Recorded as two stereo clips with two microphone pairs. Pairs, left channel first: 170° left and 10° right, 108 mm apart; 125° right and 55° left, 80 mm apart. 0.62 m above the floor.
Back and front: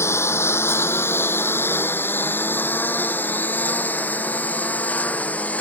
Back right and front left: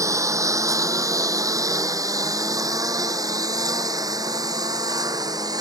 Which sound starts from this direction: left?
A lawn mower, at 0.0 s.